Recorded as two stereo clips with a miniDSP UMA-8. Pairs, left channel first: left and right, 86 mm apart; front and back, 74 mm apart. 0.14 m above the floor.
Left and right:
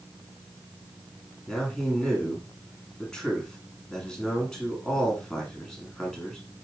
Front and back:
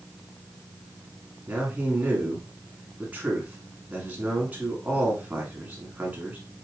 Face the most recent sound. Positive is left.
turn(degrees=160)